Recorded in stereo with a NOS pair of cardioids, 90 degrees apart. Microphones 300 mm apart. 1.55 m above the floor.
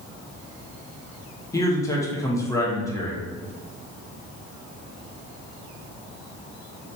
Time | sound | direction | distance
1.5 | a man speaking | 10° left | 0.8 m